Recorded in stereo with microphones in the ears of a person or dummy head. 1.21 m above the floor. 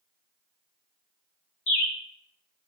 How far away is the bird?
About 1.9 m.